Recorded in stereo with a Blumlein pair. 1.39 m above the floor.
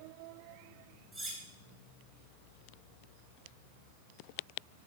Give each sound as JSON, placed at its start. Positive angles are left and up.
{"t": 1.1, "sound": "cutlery clinking", "azimuth_deg": 0, "distance_m": 4.5}